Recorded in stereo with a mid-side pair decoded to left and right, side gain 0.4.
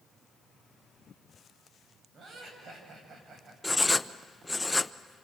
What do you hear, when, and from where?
2.1 s laughter: 60° right, 8 m
3.6 s writing: 15° left, 0.7 m